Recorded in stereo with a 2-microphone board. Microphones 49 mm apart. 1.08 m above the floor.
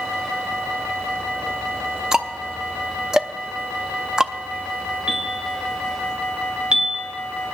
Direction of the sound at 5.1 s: 20° right (ahead or behind).